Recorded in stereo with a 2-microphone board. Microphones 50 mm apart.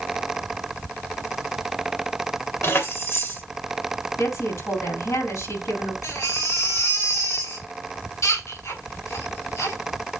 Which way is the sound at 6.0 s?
80° left.